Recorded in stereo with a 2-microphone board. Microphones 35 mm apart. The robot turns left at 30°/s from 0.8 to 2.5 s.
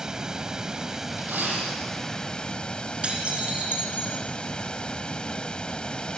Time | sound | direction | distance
0.0 | running water | 155° right | 0.9 m
1.2 | a dropped coin | 90° right | 8 m
3.0 | dishes clattering | 40° right (ahead or behind) | 4 m